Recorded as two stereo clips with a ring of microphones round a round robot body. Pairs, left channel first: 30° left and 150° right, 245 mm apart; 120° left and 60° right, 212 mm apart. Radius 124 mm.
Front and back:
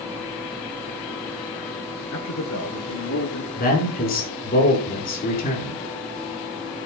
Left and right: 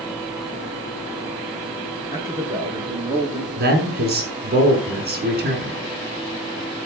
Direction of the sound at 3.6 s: 20° right.